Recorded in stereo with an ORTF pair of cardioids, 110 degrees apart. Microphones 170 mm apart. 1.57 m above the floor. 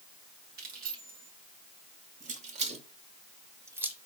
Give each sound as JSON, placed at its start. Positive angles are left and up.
{"t": 0.6, "sound": "keys jangling", "azimuth_deg": -65, "distance_m": 3.0}